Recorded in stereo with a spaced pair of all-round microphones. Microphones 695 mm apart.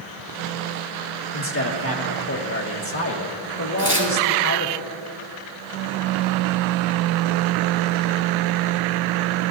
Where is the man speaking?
20° left (ahead or behind), 1.6 m.